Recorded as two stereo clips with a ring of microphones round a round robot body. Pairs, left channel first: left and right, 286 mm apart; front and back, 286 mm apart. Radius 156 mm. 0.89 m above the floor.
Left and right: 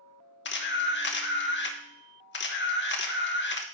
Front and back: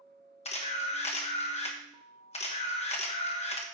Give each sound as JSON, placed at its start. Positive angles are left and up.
{"t": 0.5, "sound": "a camera shutter", "azimuth_deg": 60, "distance_m": 1.1}